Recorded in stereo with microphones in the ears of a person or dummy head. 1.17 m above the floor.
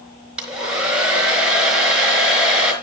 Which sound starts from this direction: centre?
A hair dryer, at 0.4 s.